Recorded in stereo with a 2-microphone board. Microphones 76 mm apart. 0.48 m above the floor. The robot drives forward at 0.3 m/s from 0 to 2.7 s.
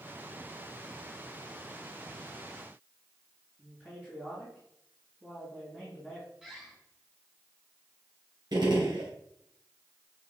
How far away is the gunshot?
About 3 m.